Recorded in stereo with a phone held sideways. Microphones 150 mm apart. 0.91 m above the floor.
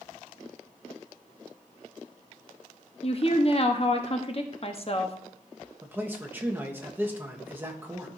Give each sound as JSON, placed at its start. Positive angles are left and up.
{"t": 3.0, "sound": "a woman speaking", "side_deg": 40, "distance_m": 0.9}
{"t": 5.8, "sound": "a man speaking", "side_deg": -15, "distance_m": 1.1}